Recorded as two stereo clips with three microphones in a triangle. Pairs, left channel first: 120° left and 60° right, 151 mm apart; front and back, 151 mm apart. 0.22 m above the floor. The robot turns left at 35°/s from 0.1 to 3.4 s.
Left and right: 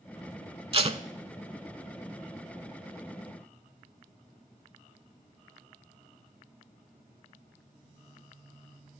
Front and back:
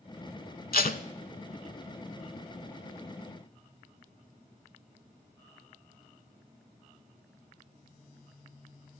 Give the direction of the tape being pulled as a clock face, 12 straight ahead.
12 o'clock.